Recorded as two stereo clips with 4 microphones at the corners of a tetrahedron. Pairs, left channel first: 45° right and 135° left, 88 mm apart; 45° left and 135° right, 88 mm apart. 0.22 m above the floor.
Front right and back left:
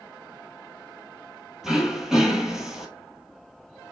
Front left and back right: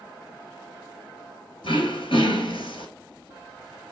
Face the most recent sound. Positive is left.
turn(degrees=50)